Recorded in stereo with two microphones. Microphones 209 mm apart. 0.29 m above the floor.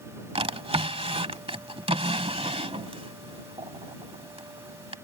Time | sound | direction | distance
0.3 | a drawer | 30° right (ahead or behind) | ?